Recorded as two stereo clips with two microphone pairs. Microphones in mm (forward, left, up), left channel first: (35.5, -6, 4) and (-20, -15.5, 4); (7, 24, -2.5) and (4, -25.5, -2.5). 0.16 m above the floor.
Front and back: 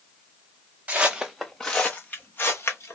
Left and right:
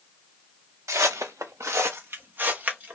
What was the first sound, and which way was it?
Footsteps, 105° right.